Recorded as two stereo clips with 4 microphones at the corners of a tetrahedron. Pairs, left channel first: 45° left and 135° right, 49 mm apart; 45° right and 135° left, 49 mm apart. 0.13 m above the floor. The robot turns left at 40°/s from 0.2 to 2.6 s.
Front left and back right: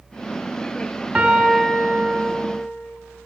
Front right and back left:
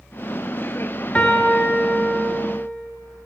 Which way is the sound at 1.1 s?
95° right.